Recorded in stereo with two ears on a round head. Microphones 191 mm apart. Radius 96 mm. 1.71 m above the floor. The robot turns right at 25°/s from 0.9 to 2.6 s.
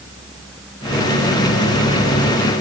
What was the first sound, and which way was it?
Only background noise.